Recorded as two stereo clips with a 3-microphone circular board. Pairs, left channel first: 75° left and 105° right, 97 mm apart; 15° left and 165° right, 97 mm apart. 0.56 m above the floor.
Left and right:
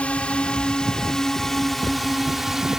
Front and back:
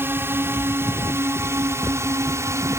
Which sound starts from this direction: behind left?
A drone, at 0.0 s.